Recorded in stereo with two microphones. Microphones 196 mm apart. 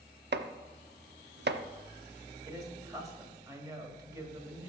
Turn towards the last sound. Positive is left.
turn(degrees=-20)  # may be behind; listen again after turning